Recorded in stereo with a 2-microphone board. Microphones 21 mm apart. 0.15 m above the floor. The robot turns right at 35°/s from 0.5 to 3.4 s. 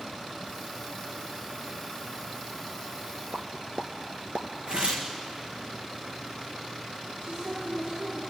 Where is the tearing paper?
55° right (ahead or behind), 2 m.